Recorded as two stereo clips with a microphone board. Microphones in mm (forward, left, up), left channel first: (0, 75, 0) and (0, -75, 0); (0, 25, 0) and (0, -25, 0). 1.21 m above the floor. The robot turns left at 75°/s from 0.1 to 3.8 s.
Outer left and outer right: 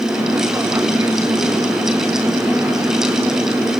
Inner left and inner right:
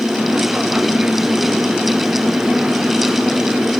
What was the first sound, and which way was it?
Only background noise.